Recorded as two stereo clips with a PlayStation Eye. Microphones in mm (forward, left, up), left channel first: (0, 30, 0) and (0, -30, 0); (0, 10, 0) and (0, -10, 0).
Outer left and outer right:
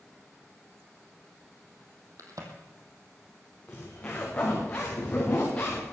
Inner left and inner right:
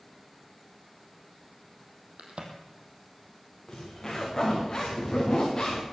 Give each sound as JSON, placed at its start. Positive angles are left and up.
{"t": 2.2, "sound": "a crack", "side_deg": -75, "distance_m": 2.5}
{"t": 3.7, "sound": "a zipper", "side_deg": 25, "distance_m": 4.0}